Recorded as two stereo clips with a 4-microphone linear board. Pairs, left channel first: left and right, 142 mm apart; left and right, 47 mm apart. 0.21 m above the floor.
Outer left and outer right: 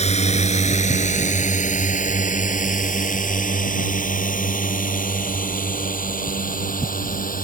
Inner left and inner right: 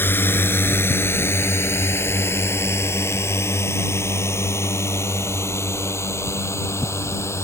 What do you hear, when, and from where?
0.0 s a drone: 50° left (ahead or behind); by 7.4 s 80° left